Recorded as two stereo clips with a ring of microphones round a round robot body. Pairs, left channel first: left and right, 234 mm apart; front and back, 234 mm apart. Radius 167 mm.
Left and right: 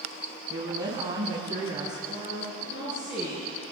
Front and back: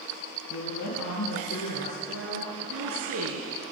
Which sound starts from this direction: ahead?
A woman speaking, at 0.5 s.